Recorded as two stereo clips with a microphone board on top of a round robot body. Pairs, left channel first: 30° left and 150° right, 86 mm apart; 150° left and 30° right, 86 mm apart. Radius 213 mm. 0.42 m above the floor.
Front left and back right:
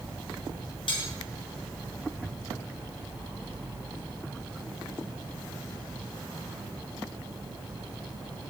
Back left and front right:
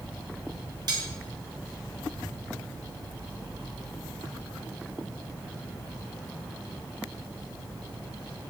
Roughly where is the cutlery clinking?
Ahead.